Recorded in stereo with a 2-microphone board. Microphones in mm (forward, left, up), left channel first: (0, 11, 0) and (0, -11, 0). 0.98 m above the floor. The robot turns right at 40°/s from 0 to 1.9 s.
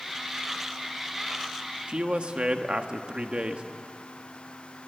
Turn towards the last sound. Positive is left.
turn(degrees=-50)  # may be behind; listen again after turning